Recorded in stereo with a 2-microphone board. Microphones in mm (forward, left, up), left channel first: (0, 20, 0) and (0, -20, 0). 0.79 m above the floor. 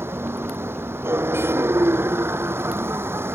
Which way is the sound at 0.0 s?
80° right.